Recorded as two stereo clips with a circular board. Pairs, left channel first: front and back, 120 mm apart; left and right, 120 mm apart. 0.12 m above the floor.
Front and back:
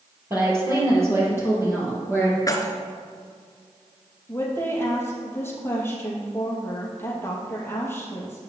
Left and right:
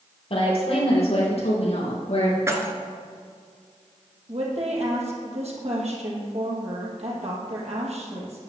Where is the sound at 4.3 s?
70° right, 3 m.